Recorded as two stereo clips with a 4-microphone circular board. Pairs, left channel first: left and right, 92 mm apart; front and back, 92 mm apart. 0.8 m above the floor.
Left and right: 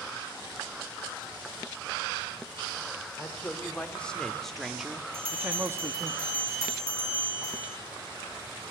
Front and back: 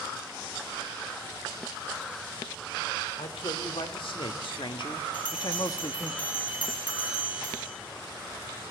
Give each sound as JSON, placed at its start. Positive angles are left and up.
{"t": 3.2, "sound": "a man speaking", "azimuth_deg": 20, "distance_m": 2.5}
{"t": 5.1, "sound": "a bell", "azimuth_deg": -25, "distance_m": 7.5}